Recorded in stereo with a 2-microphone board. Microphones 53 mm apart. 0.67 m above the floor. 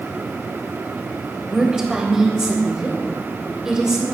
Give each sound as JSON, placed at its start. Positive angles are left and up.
{"t": 1.4, "sound": "a woman speaking", "side_deg": -10, "distance_m": 3.5}